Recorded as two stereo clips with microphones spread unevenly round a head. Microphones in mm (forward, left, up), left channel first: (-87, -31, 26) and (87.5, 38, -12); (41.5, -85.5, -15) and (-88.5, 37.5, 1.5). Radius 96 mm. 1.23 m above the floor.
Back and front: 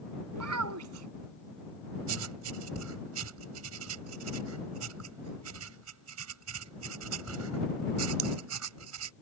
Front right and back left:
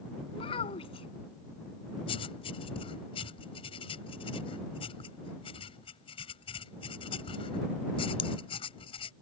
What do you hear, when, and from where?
0.3 s a child speaking: 20° left
2.1 s writing: 20° left